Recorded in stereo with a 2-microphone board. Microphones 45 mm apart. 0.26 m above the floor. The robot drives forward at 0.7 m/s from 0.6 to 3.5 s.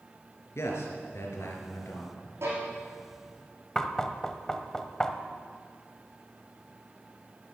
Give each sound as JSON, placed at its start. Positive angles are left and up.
{"t": 0.6, "sound": "a man speaking", "side_deg": 75, "distance_m": 3.5}
{"t": 2.4, "sound": "a violin", "side_deg": -70, "distance_m": 5.0}
{"t": 3.8, "sound": "knocking", "side_deg": 15, "distance_m": 1.0}